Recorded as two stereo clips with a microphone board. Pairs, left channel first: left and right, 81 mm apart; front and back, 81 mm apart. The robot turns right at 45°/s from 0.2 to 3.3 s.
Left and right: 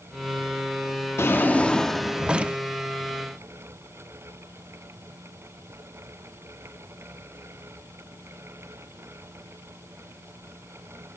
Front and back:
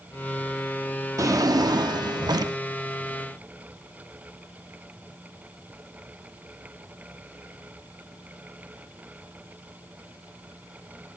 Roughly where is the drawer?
Behind left.